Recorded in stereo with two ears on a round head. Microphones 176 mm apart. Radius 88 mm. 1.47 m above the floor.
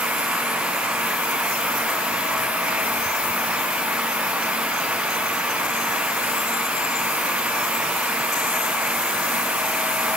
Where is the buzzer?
I don't hear a buzzer.